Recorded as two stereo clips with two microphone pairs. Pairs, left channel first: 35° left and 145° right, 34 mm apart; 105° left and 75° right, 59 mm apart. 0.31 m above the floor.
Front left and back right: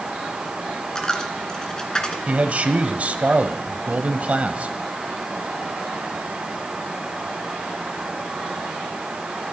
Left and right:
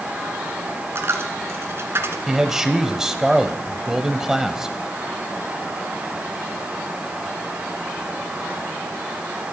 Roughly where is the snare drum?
No snare drum in this recording.